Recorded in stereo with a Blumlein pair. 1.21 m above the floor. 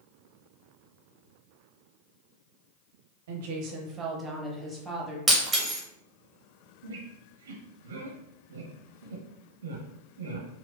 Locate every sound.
3.3 s a woman speaking: 60° right, 0.8 m; by 5.2 s 5° left, 1.5 m
5.3 s breaking glass: 10° right, 1.0 m
6.8 s a squeak: 65° right, 0.8 m